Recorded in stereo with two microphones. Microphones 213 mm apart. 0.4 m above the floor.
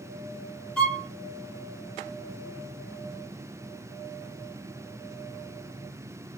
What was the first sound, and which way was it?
A violin, 5° left (ahead or behind).